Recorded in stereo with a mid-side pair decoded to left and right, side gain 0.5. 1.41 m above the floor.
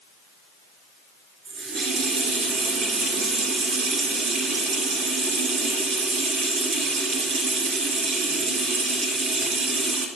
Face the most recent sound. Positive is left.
turn(degrees=-60)